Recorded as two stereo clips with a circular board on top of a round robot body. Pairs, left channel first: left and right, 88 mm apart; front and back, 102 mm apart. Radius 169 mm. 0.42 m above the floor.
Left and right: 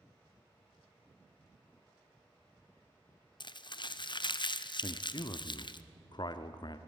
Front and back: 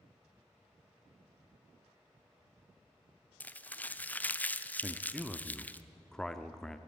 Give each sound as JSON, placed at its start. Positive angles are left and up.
{"t": 3.4, "sound": "crumpling", "azimuth_deg": 70, "distance_m": 0.9}
{"t": 4.8, "sound": "a man speaking", "azimuth_deg": 85, "distance_m": 1.0}